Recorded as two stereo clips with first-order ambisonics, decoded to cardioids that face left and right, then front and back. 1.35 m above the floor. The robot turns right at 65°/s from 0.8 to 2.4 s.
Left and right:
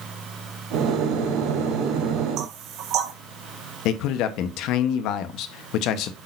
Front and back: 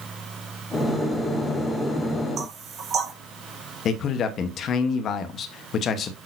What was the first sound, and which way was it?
Knocking, 125° right.